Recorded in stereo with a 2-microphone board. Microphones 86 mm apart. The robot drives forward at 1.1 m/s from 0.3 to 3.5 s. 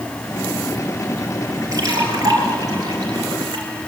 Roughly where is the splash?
Right.